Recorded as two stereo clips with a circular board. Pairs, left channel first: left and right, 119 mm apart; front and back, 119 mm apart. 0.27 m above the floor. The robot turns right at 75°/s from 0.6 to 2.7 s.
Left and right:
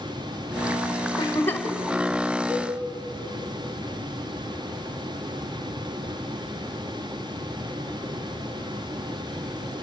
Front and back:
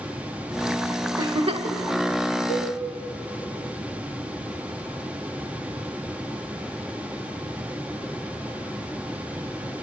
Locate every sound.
1.2 s a giggle: 130° left, 0.9 m; by 1.8 s 175° left, 0.9 m
2.5 s a cowbell: 15° right, 6 m; by 2.7 s straight ahead, 6 m